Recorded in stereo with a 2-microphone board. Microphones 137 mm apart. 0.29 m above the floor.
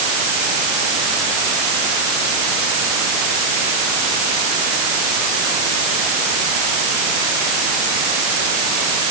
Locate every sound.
Only background noise.